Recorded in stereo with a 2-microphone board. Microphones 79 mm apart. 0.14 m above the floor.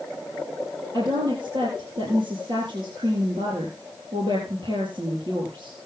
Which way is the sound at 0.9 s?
65° right (ahead or behind).